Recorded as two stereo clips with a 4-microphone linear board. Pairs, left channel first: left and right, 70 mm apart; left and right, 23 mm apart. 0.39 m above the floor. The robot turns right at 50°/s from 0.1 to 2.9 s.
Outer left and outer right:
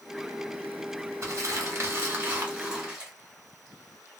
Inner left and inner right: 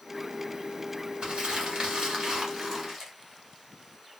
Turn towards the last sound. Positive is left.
turn(degrees=-15)